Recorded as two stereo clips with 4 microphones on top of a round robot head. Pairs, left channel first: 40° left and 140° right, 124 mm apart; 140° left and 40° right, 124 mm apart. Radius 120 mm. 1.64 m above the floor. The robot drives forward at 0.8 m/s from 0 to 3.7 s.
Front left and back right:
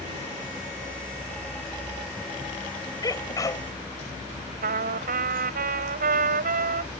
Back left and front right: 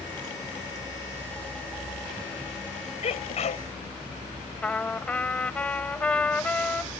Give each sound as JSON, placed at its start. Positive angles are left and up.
{"t": 3.0, "sound": "a sneeze", "azimuth_deg": 100}
{"t": 4.6, "sound": "a trumpet", "azimuth_deg": -135}